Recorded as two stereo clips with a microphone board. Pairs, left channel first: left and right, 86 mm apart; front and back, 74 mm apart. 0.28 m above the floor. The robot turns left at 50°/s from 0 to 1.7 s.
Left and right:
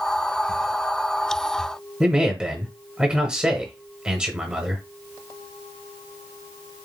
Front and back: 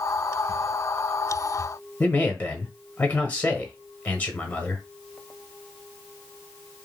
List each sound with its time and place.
2.0 s a man speaking: 25° right, 0.9 m